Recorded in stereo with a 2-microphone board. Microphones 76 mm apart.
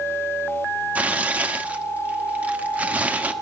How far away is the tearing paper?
About 0.9 m.